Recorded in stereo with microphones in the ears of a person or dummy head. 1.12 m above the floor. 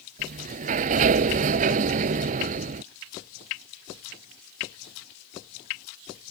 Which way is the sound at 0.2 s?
45° right (ahead or behind).